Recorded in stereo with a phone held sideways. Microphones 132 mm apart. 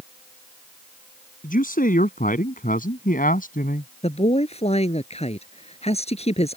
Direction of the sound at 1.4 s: 90° left.